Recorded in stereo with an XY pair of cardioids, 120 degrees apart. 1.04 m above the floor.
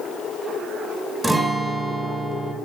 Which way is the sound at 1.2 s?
10° right.